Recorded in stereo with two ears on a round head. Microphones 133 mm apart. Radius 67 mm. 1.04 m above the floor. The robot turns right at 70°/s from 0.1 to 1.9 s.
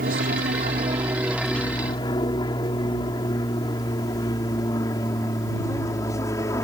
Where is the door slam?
No door slam in this recording.